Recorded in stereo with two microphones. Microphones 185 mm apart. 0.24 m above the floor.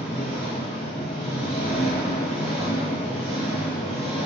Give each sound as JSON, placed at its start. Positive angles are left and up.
{"t": 0.0, "sound": "an engine running", "side_deg": 30, "distance_m": 1.3}